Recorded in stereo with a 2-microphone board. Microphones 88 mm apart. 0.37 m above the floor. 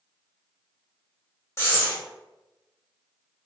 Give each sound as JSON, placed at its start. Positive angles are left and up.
{"t": 1.6, "sound": "breathing", "side_deg": 35, "distance_m": 2.0}